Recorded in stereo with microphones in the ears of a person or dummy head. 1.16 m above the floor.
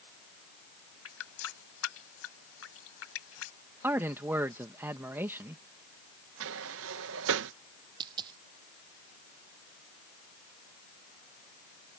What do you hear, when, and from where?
1.1 s a running tap: 85° left
3.8 s a man speaking: 15° right (ahead or behind)
6.4 s a sliding door: 70° right (ahead or behind)
8.0 s a dropped coin: 20° right (ahead or behind)